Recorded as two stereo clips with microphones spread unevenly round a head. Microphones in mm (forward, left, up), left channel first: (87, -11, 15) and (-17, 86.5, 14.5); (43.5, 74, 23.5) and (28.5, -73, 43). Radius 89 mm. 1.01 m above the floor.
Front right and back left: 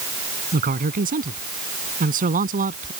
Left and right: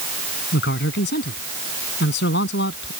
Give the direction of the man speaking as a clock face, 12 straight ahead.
8 o'clock.